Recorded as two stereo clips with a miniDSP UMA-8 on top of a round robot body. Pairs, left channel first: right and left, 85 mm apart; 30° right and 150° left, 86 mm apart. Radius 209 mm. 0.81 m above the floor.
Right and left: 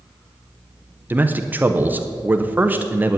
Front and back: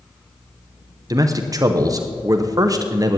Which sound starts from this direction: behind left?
A man speaking, at 1.1 s.